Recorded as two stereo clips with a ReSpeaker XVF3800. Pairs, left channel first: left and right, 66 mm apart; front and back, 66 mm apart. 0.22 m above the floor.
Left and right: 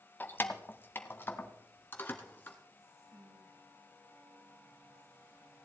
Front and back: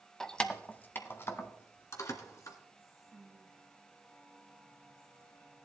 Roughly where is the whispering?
Right.